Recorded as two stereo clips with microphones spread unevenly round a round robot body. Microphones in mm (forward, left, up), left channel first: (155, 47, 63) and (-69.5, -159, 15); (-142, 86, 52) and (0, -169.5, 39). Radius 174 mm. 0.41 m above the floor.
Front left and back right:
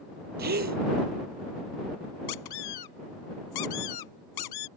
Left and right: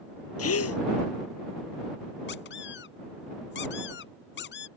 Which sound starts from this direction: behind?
A gasp, at 0.4 s.